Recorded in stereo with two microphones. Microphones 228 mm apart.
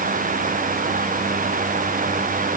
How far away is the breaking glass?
No breaking glass in this recording.